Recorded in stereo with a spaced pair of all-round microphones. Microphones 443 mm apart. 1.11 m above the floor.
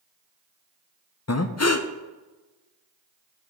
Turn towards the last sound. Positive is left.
turn(degrees=35)  # may be behind; listen again after turning